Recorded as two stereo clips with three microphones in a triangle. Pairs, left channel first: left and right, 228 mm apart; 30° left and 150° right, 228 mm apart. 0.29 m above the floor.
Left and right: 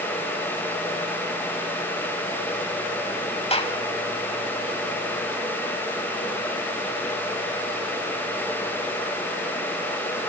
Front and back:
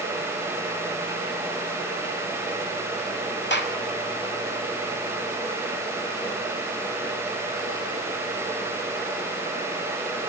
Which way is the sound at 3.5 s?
35° left.